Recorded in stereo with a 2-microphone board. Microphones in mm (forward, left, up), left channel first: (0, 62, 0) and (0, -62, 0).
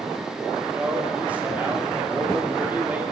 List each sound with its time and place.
0.8 s a man speaking: 10° right (ahead or behind), 1.4 m